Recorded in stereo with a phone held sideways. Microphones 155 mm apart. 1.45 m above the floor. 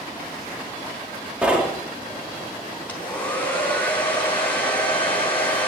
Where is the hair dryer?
10° left (ahead or behind), 4.5 m.